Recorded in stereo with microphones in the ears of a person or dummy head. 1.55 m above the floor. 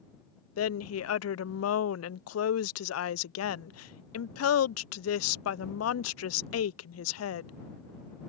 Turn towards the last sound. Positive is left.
turn(degrees=80)